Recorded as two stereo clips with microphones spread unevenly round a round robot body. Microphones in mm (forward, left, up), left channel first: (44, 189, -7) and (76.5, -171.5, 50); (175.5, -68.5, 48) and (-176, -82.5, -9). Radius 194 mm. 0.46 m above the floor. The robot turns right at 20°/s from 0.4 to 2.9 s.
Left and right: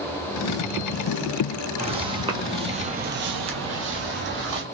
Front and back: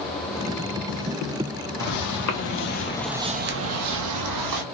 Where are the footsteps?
15° right, 1.0 m; by 4.6 s 145° right, 1.2 m.